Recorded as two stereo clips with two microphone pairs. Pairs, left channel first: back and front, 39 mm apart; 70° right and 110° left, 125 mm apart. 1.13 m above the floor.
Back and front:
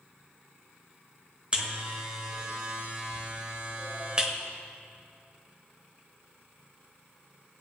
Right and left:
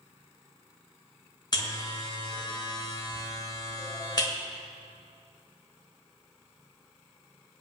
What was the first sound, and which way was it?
A buzzer, 45° right.